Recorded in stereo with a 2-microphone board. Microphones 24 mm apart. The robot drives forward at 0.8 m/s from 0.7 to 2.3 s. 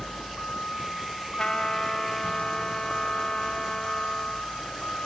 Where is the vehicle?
60° left (ahead or behind); by 5.1 s 65° left (ahead or behind).